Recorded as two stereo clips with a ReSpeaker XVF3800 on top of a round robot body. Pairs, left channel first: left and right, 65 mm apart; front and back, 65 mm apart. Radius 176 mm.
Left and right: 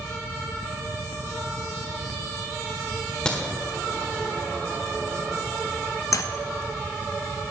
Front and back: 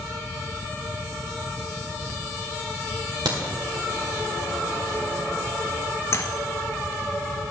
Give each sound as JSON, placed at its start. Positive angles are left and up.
{"t": 3.2, "sound": "a crack", "azimuth_deg": 165, "distance_m": 1.6}
{"t": 6.1, "sound": "keys jangling", "azimuth_deg": 50, "distance_m": 0.6}